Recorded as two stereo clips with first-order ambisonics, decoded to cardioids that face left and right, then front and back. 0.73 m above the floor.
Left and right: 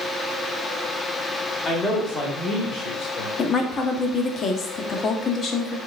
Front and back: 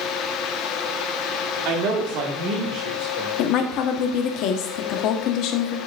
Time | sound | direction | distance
1.6 | a man speaking | 160° left | 1.6 m
3.4 | a woman speaking | 25° left | 0.9 m